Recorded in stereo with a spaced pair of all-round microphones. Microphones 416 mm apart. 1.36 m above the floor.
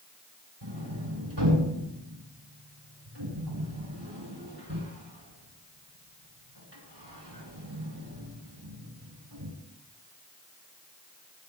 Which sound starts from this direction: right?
A sliding door, at 0.6 s.